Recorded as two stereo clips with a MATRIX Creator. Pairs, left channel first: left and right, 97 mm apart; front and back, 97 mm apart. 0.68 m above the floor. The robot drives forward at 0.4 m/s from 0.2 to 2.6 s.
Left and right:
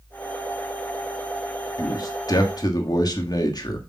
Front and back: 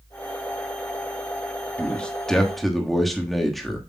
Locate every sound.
1.8 s a man speaking: 70° left, 1.4 m; by 3.9 s 90° left, 1.4 m